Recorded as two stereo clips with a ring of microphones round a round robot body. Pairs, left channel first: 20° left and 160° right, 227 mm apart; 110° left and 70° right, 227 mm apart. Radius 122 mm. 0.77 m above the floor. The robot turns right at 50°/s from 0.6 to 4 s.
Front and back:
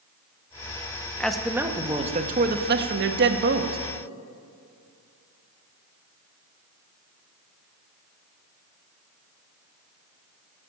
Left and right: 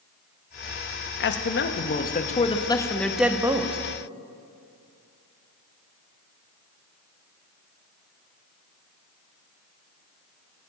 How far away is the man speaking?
About 1.1 m.